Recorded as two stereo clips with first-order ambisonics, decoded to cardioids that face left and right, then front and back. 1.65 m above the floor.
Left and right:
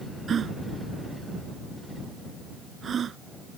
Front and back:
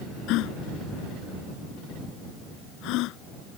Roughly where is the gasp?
Ahead right.